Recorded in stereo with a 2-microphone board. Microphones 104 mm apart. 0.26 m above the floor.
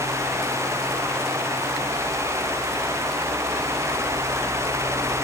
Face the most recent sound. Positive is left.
No sound to turn to.